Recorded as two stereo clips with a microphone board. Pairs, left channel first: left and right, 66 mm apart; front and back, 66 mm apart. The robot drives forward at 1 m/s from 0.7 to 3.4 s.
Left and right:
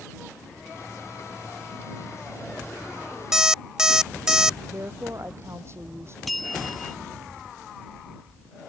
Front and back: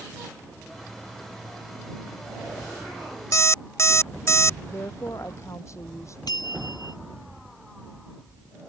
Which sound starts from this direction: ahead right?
A woman speaking, at 4.7 s.